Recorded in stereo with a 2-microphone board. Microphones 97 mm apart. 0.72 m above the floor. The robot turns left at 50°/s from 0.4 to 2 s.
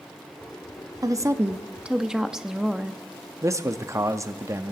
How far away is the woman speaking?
About 1.0 m.